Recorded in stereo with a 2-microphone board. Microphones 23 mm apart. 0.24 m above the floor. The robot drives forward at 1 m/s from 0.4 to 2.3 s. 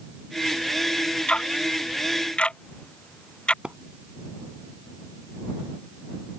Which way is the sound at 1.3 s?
55° left (ahead or behind).